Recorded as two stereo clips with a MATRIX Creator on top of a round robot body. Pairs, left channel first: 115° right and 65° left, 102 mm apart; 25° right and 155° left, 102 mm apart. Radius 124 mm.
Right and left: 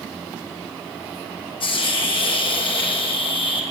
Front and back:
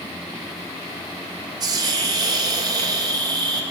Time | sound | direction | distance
1.6 | a hiss | 150° right | 4.5 m